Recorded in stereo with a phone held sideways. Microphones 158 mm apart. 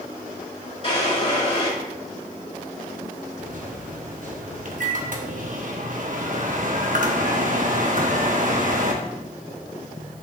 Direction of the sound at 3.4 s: 60° right (ahead or behind).